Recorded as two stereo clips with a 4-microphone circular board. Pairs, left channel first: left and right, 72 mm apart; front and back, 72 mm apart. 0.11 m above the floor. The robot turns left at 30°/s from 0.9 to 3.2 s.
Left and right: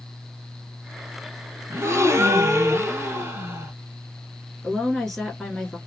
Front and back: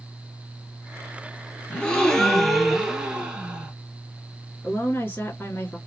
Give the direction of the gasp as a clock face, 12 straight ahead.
2 o'clock.